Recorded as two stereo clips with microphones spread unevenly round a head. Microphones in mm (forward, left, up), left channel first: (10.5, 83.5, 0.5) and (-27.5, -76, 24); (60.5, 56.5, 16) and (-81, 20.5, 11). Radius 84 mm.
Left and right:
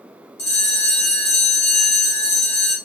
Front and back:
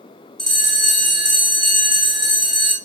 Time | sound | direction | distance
0.4 | a bell | 100° left | 1.4 m